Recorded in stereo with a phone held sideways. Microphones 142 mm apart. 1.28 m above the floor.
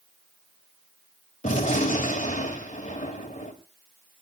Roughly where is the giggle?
I don't hear a giggle.